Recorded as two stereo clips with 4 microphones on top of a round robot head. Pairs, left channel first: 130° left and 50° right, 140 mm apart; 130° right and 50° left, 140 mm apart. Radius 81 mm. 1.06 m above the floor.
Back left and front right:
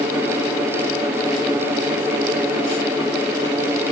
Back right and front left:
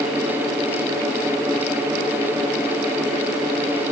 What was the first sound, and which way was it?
Only background noise.